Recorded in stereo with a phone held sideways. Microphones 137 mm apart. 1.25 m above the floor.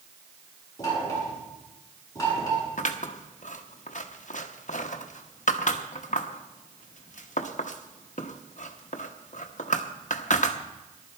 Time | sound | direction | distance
0.8 | knocking | 25° left (ahead or behind) | 8 m
2.8 | scissors | 65° left (ahead or behind) | 0.9 m